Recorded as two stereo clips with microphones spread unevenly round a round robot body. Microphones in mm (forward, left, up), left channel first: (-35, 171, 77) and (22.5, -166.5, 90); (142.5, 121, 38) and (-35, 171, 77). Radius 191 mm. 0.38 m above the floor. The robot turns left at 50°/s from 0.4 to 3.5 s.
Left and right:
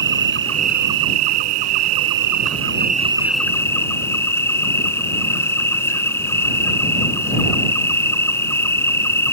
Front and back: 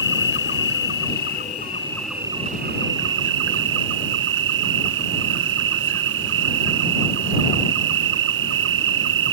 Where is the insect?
20° right; by 9.3 s 175° right.